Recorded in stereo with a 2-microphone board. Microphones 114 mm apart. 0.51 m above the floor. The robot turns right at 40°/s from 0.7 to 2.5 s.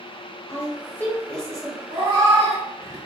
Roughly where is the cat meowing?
Right.